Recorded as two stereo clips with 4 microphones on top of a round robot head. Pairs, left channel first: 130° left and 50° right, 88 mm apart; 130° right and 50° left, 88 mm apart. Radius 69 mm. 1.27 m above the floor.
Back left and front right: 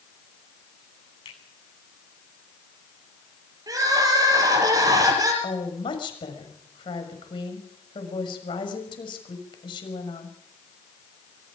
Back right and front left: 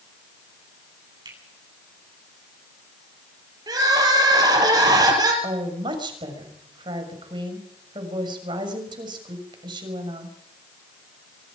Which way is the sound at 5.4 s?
90° left.